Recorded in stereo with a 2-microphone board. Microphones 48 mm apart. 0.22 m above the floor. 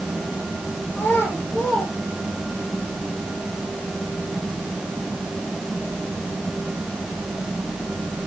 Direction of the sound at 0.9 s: 50° left (ahead or behind).